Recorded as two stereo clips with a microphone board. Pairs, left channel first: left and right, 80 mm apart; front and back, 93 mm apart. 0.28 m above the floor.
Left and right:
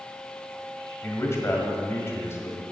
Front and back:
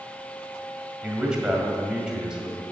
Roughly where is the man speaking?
Left.